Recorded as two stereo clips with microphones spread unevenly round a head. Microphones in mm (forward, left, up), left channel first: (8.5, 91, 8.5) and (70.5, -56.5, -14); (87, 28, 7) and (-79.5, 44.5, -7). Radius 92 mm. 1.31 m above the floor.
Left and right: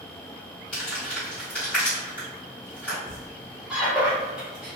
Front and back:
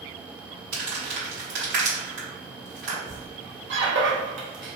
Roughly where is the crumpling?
Behind.